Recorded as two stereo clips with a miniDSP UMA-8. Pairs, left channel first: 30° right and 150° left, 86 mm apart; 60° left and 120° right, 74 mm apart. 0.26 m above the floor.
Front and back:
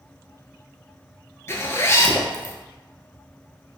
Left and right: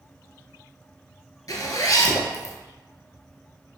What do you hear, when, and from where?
1.5 s a zipper: 30° left, 0.6 m